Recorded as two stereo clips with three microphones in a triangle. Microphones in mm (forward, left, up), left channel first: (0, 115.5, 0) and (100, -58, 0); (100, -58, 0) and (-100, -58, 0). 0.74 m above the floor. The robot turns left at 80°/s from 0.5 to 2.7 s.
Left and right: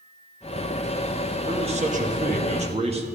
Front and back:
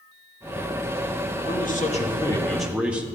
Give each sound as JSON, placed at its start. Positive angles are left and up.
{"t": 1.5, "sound": "a man speaking", "azimuth_deg": 0, "distance_m": 0.9}